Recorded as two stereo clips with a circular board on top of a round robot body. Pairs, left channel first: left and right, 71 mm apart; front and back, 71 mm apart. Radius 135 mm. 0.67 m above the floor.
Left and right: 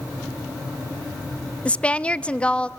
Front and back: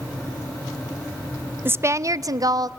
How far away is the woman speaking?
About 0.6 m.